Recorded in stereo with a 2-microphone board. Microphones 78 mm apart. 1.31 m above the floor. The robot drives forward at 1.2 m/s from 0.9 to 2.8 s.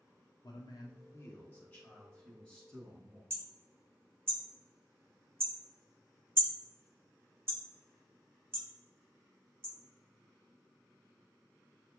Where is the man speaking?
60° left (ahead or behind), 0.6 m; by 3.2 s 10° left (ahead or behind), 2.5 m.